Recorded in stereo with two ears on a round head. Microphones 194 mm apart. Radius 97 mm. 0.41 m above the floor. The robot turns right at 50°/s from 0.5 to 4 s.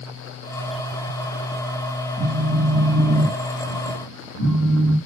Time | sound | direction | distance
2.2 | a phone buzzing | 20° right | 2.5 m